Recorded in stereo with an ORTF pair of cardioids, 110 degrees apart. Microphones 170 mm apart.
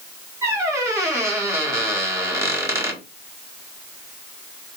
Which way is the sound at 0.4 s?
15° right.